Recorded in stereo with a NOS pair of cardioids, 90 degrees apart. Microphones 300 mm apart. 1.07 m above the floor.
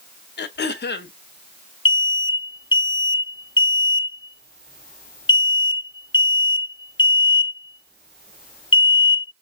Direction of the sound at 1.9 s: 15° left.